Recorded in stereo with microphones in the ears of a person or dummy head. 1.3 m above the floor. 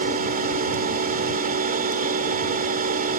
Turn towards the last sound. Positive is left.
turn(degrees=-45)  # may be behind; listen again after turning